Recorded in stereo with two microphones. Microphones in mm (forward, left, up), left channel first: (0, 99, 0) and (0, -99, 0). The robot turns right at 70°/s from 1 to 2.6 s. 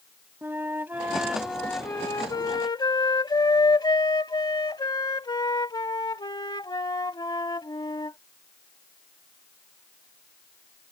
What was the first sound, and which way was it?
A flute, 10° right (ahead or behind).